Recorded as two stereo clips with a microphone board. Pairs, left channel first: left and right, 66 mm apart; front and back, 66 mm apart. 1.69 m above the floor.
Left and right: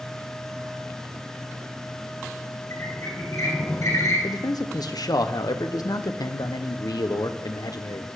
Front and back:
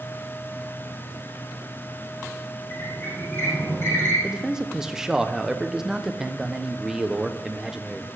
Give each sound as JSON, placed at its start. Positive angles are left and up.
{"t": 2.7, "sound": "a squeak", "azimuth_deg": 55, "distance_m": 7.5}
{"t": 4.2, "sound": "a man speaking", "azimuth_deg": 100, "distance_m": 1.1}